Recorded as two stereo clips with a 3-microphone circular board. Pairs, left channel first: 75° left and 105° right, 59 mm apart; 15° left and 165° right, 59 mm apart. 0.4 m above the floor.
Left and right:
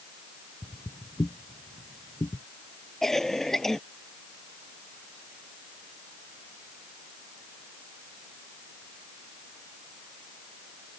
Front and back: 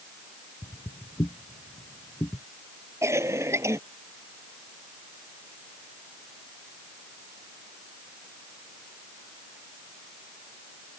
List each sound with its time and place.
0.6 s footsteps: straight ahead; by 2.4 s 50° left
3.0 s a cough: 160° left